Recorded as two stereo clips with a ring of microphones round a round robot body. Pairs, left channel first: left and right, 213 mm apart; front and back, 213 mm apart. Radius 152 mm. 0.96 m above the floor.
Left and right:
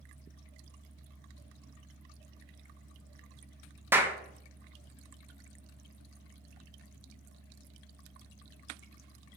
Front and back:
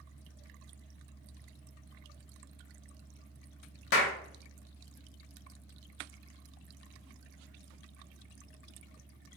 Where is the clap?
10° right, 0.6 m.